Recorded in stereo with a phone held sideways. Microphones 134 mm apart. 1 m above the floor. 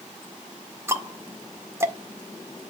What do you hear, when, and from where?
0.9 s ticking: 20° right (ahead or behind), 1.7 m